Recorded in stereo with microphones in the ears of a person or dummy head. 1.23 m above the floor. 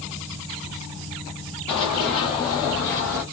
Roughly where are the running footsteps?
Left.